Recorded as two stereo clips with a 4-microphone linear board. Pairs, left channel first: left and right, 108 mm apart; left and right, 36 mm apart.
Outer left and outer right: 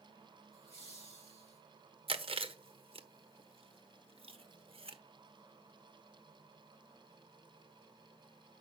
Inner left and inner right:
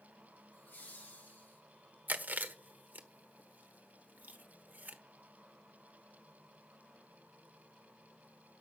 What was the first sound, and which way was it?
Laughter, 60° left (ahead or behind).